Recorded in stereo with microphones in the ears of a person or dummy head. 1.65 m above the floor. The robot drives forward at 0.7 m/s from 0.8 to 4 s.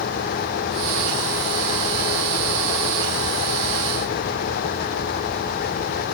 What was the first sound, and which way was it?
Only background noise.